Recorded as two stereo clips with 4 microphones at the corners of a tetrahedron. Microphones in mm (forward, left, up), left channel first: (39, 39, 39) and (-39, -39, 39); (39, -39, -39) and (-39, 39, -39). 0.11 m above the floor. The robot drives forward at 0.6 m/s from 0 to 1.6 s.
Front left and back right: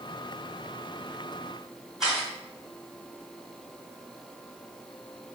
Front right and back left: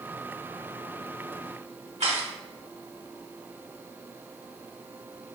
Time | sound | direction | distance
2.0 | a camera shutter | 140° left | 2.0 m